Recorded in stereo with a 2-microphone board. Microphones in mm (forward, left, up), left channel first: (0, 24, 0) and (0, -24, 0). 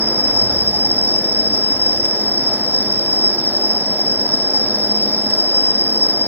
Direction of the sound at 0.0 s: 50° right (ahead or behind).